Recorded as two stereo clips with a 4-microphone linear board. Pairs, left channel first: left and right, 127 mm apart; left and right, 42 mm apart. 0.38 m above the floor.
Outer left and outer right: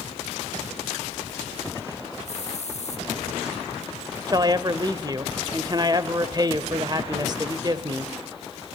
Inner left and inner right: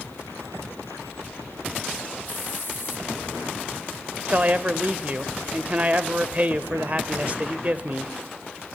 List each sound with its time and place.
2.2 s a hiss: 65° left (ahead or behind), 2.5 m
4.3 s a man speaking: 35° right (ahead or behind), 1.0 m